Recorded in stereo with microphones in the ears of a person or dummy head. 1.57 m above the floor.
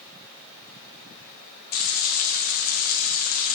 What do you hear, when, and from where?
1.7 s frying: 50° left (ahead or behind), 0.7 m